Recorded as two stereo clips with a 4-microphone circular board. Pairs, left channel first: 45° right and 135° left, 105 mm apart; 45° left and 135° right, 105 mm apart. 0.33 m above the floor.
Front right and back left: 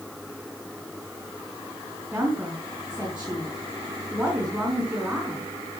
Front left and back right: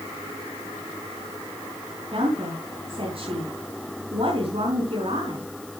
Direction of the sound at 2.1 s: 150° right.